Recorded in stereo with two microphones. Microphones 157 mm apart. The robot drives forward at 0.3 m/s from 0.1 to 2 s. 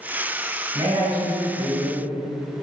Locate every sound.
0.7 s a man speaking: 35° right (ahead or behind), 1.2 m; by 2.0 s 30° right (ahead or behind), 1.3 m